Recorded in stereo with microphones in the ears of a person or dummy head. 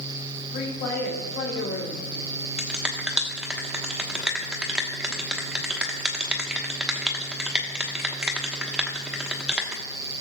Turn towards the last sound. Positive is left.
turn(degrees=-10)  # may be behind; listen again after turning